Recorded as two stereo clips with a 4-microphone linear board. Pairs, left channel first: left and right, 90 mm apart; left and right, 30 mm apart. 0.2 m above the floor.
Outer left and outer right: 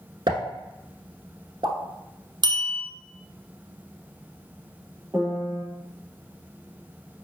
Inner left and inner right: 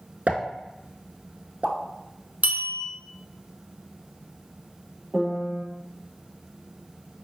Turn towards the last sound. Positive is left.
turn(degrees=-30)  # may be behind; listen again after turning